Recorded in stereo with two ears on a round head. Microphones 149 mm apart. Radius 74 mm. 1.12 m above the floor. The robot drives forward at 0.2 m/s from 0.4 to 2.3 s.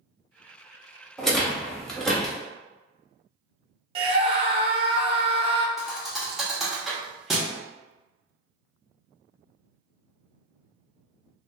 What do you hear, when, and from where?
1.2 s a rattle: centre (ahead or behind), 0.6 m; by 2.4 s 5° left (ahead or behind), 0.5 m
4.0 s a scream: 35° right (ahead or behind), 0.5 m
5.8 s a thud: centre (ahead or behind), 0.7 m